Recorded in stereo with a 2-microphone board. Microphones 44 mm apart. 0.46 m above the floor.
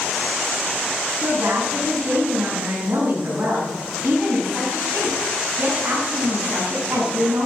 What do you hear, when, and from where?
1.2 s a woman speaking: 70° right (ahead or behind), 4.5 m